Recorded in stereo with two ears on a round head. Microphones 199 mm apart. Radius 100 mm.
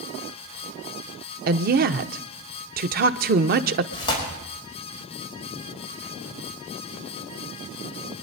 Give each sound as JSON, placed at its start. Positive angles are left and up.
{"t": 1.5, "sound": "a woman speaking", "side_deg": -40, "distance_m": 0.8}
{"t": 3.9, "sound": "tearing paper", "side_deg": 20, "distance_m": 5.0}